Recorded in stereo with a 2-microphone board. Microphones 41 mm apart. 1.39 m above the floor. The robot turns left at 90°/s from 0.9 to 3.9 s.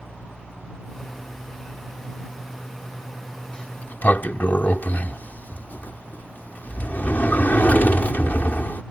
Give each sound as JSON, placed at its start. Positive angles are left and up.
{"t": 3.5, "sound": "a sliding door", "azimuth_deg": 150}